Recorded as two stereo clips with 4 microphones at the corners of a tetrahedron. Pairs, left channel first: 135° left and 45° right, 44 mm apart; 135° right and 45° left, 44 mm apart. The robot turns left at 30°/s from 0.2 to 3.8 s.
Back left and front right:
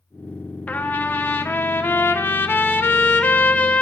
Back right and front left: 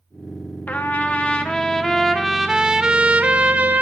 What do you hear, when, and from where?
0.7 s a trumpet: straight behind, 0.6 m; by 3.8 s 85° left, 0.6 m